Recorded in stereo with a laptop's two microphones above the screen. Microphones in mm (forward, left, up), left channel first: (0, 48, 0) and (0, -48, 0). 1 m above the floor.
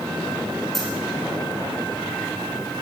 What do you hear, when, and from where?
0.7 s a dropped coin: centre (ahead or behind), 6.5 m